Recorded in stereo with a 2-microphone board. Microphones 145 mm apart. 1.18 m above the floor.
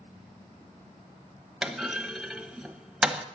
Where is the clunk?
5° right (ahead or behind), 1.1 m.